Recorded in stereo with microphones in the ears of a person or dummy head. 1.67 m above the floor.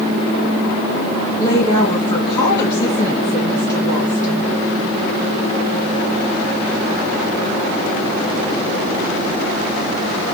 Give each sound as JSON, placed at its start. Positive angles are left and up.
{"t": 1.4, "sound": "a woman speaking", "side_deg": 25, "distance_m": 1.9}